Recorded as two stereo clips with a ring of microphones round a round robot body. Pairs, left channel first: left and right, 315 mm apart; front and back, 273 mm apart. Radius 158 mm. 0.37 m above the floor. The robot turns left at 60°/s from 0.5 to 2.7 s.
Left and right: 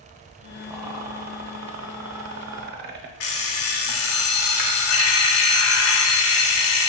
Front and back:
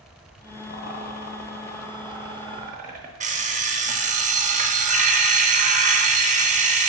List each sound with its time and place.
0.7 s a rattle: 10° right, 0.6 m; by 3.1 s 130° right, 0.6 m
3.2 s an alarm clock: 120° left, 0.7 m